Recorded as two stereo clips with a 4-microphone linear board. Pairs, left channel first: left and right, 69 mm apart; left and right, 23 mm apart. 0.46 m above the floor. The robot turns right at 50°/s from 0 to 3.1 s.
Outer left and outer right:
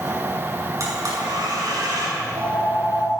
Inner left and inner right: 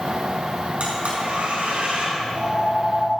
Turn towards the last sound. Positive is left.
turn(degrees=-85)